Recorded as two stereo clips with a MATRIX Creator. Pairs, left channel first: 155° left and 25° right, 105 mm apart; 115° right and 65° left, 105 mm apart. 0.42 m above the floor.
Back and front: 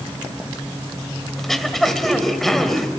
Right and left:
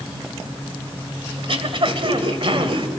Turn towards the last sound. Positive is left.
turn(degrees=70)